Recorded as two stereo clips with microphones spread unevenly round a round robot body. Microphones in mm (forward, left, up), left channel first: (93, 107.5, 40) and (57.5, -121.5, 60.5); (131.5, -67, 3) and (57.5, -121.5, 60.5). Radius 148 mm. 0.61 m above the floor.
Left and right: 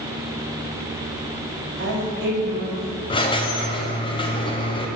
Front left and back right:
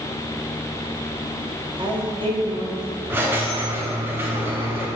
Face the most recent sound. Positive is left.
turn(degrees=100)